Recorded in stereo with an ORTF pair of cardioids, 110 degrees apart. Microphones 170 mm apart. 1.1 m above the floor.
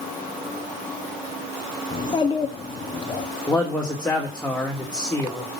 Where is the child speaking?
25° left, 1.7 m.